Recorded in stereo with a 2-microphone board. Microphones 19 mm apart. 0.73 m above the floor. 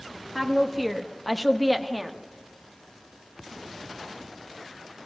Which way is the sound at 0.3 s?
5° left (ahead or behind).